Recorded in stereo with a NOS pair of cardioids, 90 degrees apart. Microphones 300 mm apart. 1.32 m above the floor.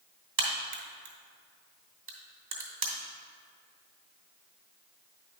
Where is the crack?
45° right, 2.5 m.